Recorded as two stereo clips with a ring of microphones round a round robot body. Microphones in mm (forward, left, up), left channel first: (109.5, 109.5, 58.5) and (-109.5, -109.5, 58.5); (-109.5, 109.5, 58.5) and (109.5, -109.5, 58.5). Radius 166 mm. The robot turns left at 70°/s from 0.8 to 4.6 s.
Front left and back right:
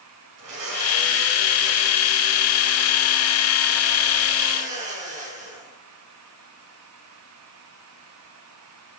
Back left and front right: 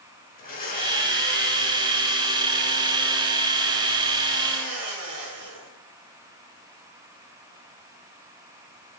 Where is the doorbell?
No doorbell in this recording.